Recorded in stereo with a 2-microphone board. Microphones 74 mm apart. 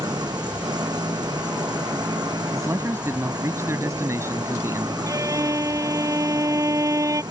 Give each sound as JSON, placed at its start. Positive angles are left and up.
{"t": 0.0, "sound": "an engine running", "side_deg": -65}
{"t": 2.5, "sound": "a man speaking", "side_deg": -40}
{"t": 5.1, "sound": "a violin", "side_deg": -45}